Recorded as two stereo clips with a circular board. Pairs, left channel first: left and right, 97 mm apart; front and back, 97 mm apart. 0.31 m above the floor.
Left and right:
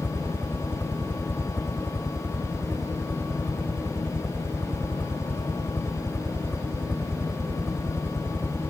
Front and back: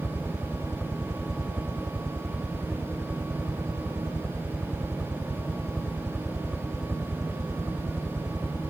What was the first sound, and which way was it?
A helicopter, 110° left.